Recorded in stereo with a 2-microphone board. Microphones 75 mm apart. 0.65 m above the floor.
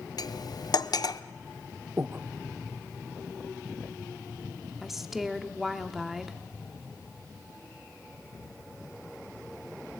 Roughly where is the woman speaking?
Centre.